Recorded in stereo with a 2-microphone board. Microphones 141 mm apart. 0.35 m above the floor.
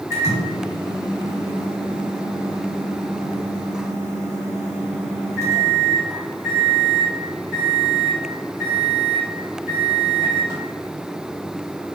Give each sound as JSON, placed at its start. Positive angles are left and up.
{"t": 0.1, "sound": "a microwave", "side_deg": -20, "distance_m": 1.9}